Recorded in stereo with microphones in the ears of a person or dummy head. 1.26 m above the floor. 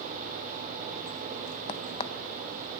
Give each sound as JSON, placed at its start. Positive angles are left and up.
{"t": 1.7, "sound": "a crack", "side_deg": 35, "distance_m": 0.6}